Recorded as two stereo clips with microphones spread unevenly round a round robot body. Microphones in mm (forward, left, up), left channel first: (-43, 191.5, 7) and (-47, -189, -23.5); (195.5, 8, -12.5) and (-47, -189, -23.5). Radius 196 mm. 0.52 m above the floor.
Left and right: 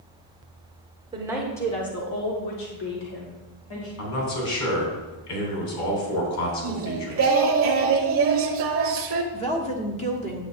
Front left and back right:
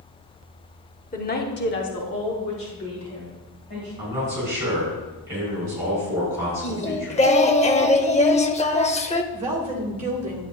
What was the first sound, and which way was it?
A woman speaking, 20° right.